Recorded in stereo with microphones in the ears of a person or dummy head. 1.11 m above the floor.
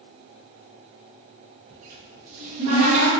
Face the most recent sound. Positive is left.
turn(degrees=-35)  # may be behind; listen again after turning